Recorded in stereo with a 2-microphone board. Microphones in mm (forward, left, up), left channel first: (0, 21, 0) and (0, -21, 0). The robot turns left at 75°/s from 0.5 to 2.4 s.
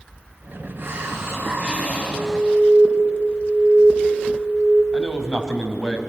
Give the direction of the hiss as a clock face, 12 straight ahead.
2 o'clock.